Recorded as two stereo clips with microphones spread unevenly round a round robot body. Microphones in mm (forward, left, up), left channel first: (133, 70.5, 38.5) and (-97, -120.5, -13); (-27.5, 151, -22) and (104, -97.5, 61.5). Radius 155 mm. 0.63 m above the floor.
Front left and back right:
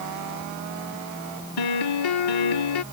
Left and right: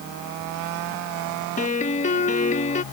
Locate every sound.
1.6 s a piano: 60° left